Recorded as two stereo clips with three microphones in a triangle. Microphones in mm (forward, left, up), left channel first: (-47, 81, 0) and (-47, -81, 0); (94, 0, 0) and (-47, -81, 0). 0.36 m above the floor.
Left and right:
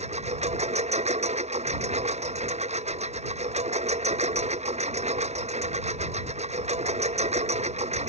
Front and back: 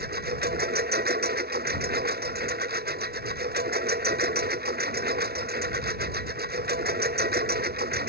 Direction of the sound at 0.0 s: 135° right.